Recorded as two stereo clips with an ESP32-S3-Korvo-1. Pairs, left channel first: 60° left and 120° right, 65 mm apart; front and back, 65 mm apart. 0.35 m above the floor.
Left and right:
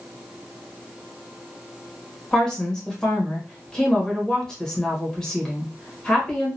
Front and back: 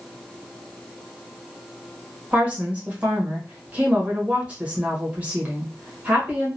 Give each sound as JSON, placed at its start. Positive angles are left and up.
{"t": 2.3, "sound": "a woman speaking", "azimuth_deg": 130, "distance_m": 1.2}